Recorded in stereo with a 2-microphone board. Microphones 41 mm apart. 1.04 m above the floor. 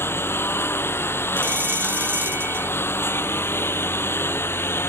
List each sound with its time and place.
0.0 s a lawn mower: 85° left
1.4 s a bell: 55° right (ahead or behind)